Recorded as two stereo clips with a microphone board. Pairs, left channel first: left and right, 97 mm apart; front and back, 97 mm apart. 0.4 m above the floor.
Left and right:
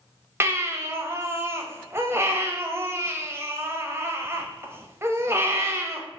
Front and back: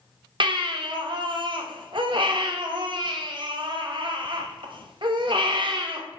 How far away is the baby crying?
About 0.6 m.